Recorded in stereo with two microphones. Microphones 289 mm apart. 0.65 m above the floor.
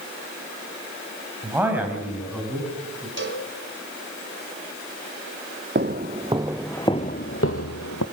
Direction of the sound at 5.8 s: 35° right (ahead or behind).